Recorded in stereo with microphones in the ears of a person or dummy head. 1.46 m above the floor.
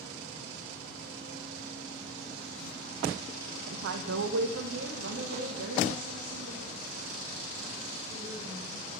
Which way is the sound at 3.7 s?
65° right (ahead or behind).